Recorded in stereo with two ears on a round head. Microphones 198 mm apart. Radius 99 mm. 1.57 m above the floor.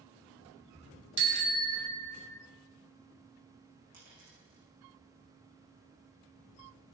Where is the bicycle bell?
50° right (ahead or behind), 2.5 m; by 2.4 s 45° right (ahead or behind), 3 m.